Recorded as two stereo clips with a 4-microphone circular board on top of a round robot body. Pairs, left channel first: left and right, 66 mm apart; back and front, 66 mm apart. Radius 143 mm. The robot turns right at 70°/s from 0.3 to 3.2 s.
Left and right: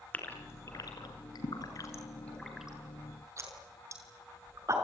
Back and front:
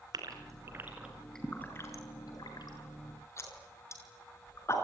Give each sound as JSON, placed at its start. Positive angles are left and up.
{"t": 0.1, "sound": "a gasp", "azimuth_deg": 25, "distance_m": 6.0}